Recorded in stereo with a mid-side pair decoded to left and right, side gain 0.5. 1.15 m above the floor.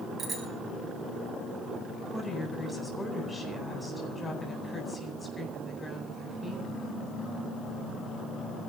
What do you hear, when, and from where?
0.2 s a bicycle bell: 40° right, 6 m
2.1 s a woman speaking: 20° left, 9 m